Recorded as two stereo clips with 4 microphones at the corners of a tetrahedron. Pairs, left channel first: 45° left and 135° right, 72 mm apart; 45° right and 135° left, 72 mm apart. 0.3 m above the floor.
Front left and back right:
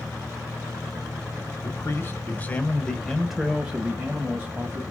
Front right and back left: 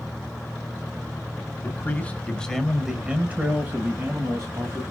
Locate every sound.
1.6 s a man speaking: 5° left, 1.3 m; by 4.8 s 170° left, 1.7 m